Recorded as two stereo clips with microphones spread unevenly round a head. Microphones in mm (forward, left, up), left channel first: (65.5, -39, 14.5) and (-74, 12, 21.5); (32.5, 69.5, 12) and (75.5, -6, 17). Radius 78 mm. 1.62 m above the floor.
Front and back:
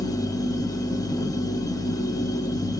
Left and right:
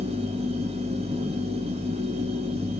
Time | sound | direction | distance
0.0 | a machine running | 90° right | 0.9 m